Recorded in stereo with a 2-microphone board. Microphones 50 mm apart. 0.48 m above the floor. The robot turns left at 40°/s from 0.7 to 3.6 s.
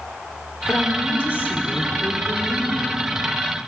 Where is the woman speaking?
90° left, 1.6 m; by 3.1 s 5° right, 1.6 m.